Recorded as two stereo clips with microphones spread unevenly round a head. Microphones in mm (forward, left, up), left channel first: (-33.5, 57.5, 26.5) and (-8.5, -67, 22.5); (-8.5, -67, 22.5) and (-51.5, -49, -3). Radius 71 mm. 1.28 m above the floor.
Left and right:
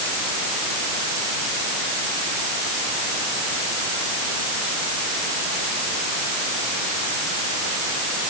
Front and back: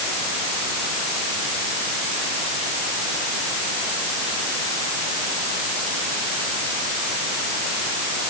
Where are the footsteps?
I don't hear footsteps.